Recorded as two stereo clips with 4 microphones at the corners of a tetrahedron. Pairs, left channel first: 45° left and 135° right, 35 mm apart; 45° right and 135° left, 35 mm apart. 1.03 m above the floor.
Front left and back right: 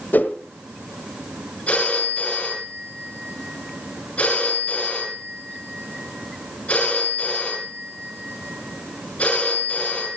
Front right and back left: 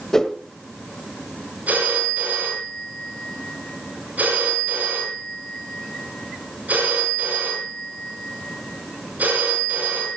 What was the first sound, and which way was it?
A whoosh, 30° left.